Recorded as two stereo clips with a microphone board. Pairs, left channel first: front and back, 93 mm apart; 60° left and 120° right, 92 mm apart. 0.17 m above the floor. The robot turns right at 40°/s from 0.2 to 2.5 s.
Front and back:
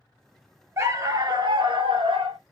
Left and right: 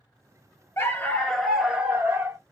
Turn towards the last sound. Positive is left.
turn(degrees=-170)